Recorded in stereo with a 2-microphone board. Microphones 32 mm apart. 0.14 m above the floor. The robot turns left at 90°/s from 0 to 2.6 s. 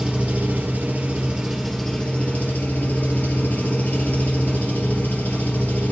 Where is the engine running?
30° right, 3 m; by 5.9 s 95° left, 3 m.